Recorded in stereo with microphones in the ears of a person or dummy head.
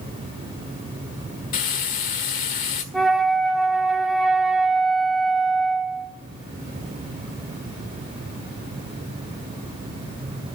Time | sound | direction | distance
1.5 | frying | 45° left (ahead or behind) | 1.6 m
2.9 | a flute | centre (ahead or behind) | 1.7 m